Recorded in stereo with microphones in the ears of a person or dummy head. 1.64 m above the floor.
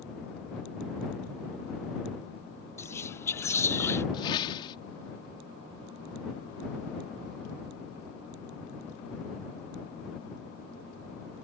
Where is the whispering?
20° left (ahead or behind).